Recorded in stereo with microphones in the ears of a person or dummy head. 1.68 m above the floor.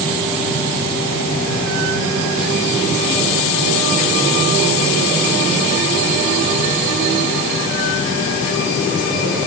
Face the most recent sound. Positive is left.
No sound to turn to.